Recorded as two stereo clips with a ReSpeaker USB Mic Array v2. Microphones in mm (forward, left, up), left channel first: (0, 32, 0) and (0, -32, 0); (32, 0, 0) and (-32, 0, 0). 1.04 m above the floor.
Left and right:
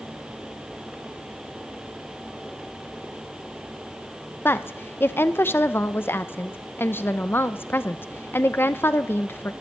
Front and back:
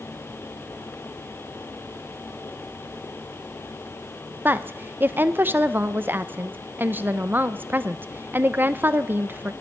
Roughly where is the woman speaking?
Behind left.